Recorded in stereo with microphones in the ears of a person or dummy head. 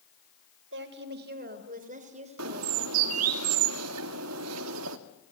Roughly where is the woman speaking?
Right.